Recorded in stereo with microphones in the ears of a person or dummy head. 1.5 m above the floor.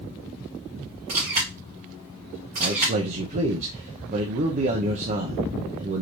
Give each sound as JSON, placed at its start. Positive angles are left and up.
{"t": 1.1, "sound": "a camera shutter", "side_deg": -40, "distance_m": 2.0}
{"t": 2.6, "sound": "a man speaking", "side_deg": -40, "distance_m": 0.7}